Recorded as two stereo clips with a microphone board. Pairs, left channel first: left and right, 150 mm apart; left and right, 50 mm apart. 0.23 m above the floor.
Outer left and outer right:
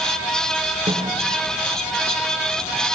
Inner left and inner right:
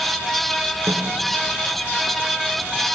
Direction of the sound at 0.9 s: 55° right (ahead or behind).